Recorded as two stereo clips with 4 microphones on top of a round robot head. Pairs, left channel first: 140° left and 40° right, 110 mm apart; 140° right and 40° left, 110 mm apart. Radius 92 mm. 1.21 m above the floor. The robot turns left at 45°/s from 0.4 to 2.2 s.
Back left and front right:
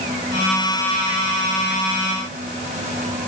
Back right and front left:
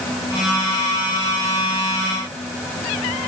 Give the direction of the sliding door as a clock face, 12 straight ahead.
No sliding door in this recording.